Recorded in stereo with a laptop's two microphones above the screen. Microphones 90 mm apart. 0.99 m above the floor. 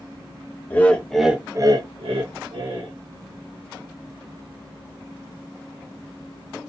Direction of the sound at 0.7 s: 25° left (ahead or behind).